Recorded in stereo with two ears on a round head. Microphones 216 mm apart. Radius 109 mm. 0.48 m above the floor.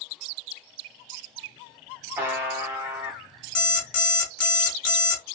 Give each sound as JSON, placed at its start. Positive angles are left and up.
{"t": 2.2, "sound": "a buzzer", "side_deg": -10, "distance_m": 0.5}
{"t": 3.5, "sound": "an alarm clock", "side_deg": 75, "distance_m": 1.1}